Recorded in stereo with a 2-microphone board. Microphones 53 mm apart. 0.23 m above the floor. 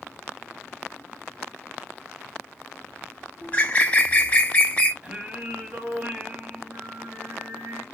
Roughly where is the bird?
Left.